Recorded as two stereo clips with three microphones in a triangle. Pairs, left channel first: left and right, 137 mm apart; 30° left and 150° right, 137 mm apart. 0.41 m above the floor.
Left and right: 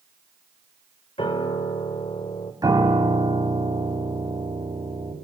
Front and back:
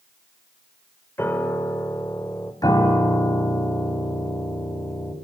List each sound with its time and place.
1.2 s a piano: 95° left, 1.5 m
2.6 s a piano: 30° right, 3 m